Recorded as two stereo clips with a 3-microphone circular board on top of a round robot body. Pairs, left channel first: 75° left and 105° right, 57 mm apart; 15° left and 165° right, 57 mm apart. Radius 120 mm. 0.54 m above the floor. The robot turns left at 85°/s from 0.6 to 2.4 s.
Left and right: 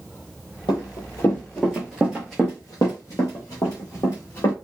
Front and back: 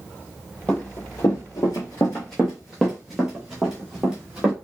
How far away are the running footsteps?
About 1.0 m.